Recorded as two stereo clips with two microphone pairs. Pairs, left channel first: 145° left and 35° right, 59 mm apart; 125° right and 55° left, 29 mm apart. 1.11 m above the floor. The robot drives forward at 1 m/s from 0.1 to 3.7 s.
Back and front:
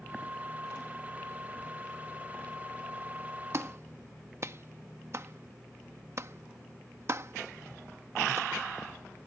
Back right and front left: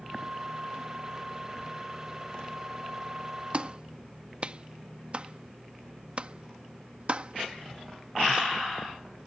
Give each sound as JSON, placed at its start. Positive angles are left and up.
{"t": 3.5, "sound": "a clap", "azimuth_deg": 5}